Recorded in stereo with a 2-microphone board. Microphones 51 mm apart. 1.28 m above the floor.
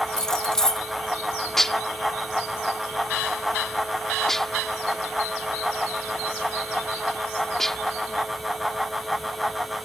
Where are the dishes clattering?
5° left (ahead or behind).